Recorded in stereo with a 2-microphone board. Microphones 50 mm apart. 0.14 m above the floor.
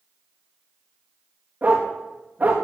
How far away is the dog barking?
About 3.5 m.